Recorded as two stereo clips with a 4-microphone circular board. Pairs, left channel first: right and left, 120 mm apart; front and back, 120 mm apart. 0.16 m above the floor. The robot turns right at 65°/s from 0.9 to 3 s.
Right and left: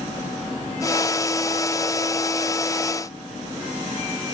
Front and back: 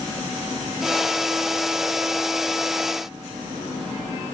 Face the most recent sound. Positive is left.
No sound to turn to.